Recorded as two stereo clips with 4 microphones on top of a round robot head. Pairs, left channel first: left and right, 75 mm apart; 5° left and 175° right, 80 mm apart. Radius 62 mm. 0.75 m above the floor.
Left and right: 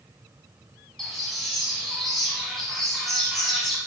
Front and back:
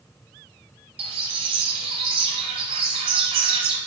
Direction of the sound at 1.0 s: Straight behind.